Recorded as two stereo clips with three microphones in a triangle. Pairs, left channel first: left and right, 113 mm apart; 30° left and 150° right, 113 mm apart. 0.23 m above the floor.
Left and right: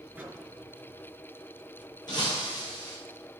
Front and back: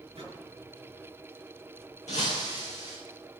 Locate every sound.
0.1 s a microwave: 165° right, 3 m
2.1 s breaking glass: 40° left, 4 m